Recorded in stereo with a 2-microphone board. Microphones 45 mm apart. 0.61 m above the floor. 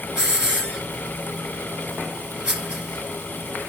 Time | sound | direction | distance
0.2 | a hiss | 20° right (ahead or behind) | 3 m